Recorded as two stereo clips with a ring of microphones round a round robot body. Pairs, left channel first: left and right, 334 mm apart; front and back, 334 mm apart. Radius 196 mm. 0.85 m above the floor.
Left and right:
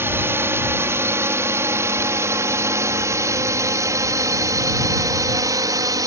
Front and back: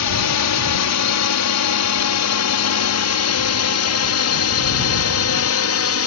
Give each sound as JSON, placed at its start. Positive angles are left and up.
{"t": 0.0, "sound": "a drone", "azimuth_deg": -10}